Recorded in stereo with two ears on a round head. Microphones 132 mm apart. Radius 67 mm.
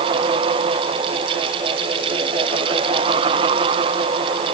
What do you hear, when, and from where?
Only background noise.